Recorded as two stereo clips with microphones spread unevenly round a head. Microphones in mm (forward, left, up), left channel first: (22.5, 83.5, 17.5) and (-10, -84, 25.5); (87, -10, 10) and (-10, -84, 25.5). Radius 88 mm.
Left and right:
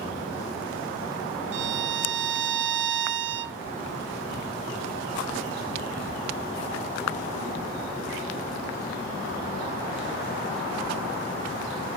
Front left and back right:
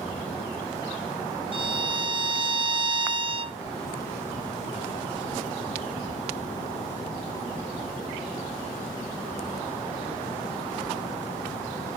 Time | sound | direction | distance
1.5 | a violin | 90° right | 0.6 m